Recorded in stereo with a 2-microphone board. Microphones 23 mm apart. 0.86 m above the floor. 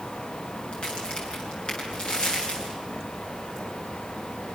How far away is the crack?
About 9 m.